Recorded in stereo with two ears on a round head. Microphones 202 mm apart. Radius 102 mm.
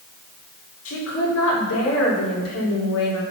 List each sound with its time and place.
0.8 s a woman speaking: 75° left (ahead or behind), 5.5 m; by 3.2 s 80° left, 4.5 m